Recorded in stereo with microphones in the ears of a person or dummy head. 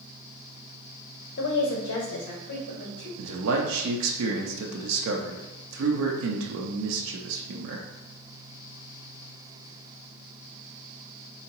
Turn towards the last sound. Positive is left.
turn(degrees=-75)  # may be behind; listen again after turning